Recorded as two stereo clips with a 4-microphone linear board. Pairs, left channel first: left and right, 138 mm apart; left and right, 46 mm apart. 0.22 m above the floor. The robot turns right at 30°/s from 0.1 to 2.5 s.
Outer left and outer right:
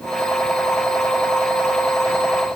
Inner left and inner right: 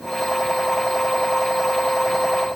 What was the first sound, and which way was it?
Only background noise.